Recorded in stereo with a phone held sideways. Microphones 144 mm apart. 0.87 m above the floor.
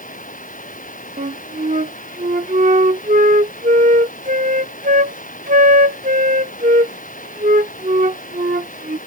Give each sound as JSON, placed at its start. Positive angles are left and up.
{"t": 0.0, "sound": "running water", "side_deg": 65}
{"t": 1.2, "sound": "a flute", "side_deg": -65}